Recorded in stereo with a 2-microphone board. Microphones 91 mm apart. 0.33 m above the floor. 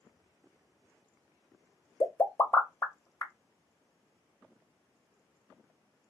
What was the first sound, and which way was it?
A pop, 30° left (ahead or behind).